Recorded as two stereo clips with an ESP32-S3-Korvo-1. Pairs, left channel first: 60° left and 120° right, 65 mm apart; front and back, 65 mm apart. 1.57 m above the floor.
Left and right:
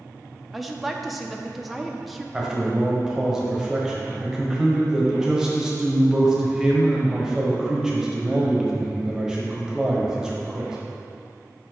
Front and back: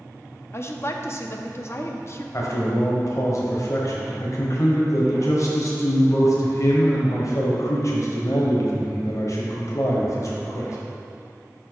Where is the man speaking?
40° right, 1.1 m.